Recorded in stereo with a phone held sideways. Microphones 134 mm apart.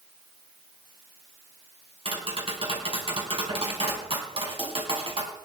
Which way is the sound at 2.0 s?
45° right (ahead or behind).